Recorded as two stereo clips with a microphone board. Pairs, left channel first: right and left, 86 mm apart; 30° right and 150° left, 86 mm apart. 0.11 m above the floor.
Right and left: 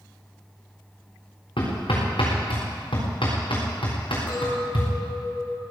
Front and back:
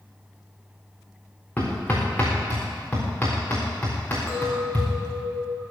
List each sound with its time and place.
1.6 s hammering: 100° right, 7 m
4.3 s a clink: 125° right, 5 m